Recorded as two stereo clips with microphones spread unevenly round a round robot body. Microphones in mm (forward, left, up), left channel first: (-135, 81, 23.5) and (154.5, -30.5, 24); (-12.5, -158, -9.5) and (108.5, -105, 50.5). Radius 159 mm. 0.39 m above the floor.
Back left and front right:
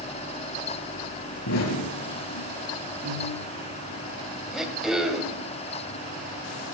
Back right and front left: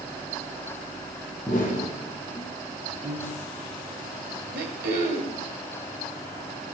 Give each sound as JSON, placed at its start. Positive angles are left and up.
{"t": 1.5, "sound": "an explosion", "azimuth_deg": 115, "distance_m": 7.5}
{"t": 3.0, "sound": "a piano", "azimuth_deg": 10, "distance_m": 9.5}
{"t": 4.5, "sound": "throat clearing", "azimuth_deg": 65, "distance_m": 2.5}